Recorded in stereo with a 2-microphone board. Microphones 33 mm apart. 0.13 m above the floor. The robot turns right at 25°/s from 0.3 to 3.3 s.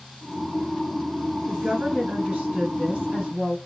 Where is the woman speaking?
125° right, 1.9 m; by 3.6 s 80° right, 1.9 m.